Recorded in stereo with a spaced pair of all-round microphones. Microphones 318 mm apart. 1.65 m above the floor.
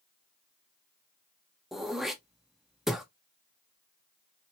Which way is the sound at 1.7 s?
Centre (ahead or behind).